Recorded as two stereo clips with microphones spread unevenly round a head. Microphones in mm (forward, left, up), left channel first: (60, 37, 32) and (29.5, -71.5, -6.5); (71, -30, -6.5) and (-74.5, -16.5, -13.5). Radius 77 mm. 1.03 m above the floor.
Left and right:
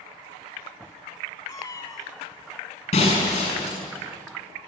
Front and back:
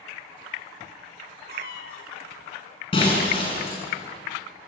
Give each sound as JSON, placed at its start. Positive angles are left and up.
{"t": 1.5, "sound": "a cat meowing", "azimuth_deg": 20, "distance_m": 3.0}
{"t": 2.9, "sound": "breaking glass", "azimuth_deg": 55, "distance_m": 6.5}